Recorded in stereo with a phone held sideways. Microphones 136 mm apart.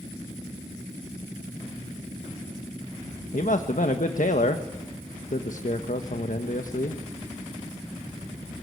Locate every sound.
3.3 s a man speaking: 70° left (ahead or behind), 1.4 m